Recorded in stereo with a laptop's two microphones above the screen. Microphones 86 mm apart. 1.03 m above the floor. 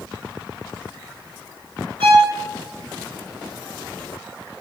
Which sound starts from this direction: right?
A violin, at 2.0 s.